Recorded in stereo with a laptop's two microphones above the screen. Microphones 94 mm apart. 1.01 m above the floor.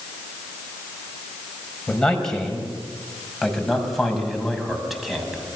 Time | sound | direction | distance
1.9 | a man speaking | 10° left (ahead or behind) | 5.5 m